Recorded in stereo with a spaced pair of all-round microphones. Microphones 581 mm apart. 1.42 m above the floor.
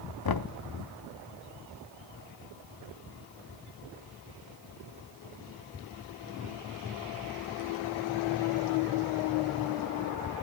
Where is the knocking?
40° left (ahead or behind), 0.5 m.